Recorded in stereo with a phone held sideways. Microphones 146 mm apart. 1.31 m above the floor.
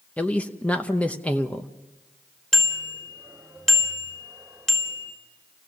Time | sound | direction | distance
0.2 | a man speaking | 10° left (ahead or behind) | 0.8 m
2.5 | a bicycle bell | 5° left (ahead or behind) | 3.5 m